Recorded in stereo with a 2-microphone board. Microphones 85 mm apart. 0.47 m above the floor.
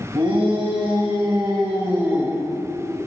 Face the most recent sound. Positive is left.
turn(degrees=-10)  # may be behind; listen again after turning